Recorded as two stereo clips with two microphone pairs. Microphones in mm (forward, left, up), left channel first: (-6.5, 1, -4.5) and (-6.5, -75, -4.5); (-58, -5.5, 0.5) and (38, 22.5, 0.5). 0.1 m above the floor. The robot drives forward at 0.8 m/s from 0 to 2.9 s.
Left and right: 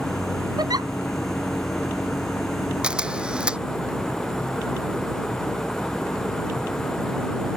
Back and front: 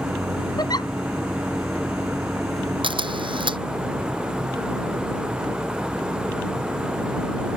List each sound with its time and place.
0.6 s a giggle: 115° right; by 0.9 s 120° right
2.8 s a camera shutter: 15° right